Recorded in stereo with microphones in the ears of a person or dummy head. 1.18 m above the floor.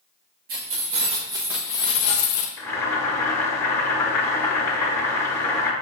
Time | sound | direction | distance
0.5 | keys jangling | 45° right (ahead or behind) | 1.3 m
2.6 | boiling | 15° left (ahead or behind) | 1.0 m